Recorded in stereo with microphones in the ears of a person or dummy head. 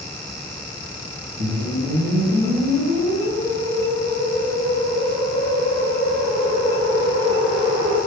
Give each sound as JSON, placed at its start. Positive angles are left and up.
{"t": 1.4, "sound": "a whoosh", "side_deg": -60, "distance_m": 1.7}